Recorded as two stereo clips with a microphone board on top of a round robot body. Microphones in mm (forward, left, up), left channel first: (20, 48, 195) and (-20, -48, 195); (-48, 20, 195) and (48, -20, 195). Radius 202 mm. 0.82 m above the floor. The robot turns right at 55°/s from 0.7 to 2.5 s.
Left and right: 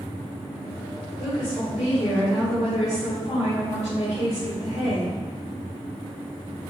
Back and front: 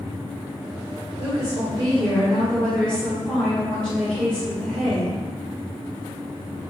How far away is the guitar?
No guitar in this recording.